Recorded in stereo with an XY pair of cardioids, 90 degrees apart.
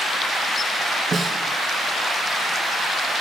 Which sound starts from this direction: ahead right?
A snare drum, at 1.1 s.